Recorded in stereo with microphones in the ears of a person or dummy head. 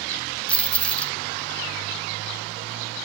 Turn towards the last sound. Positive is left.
turn(degrees=10)  # may be behind; listen again after turning